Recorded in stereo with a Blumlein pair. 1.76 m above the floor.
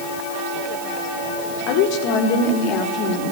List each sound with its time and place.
1.7 s a woman speaking: 45° left, 4.5 m